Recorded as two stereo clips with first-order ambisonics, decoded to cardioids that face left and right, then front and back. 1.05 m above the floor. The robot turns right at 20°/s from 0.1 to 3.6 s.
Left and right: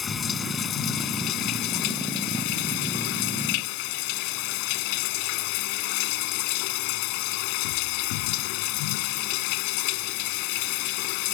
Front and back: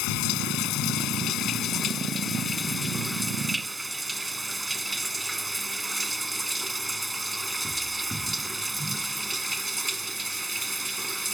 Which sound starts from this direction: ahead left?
Running water, at 0.0 s.